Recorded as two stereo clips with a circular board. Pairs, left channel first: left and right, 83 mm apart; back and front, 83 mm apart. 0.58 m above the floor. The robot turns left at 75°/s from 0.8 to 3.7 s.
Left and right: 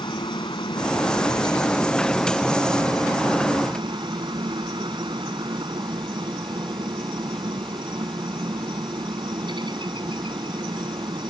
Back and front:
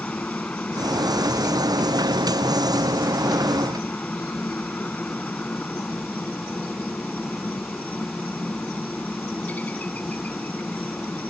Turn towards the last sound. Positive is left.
turn(degrees=-110)